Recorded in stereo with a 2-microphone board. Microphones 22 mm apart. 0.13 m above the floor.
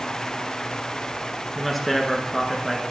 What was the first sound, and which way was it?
A man speaking, 5° left (ahead or behind).